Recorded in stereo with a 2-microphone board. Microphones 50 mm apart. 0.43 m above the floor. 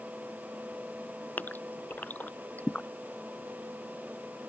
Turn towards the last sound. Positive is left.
turn(degrees=35)  # may be behind; listen again after turning